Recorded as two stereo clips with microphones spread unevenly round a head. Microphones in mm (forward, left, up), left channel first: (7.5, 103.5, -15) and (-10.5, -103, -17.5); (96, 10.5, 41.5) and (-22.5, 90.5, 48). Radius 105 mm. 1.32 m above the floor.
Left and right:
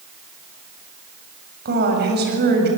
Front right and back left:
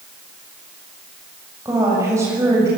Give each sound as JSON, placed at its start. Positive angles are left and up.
{"t": 1.6, "sound": "a woman speaking", "azimuth_deg": -140, "distance_m": 7.5}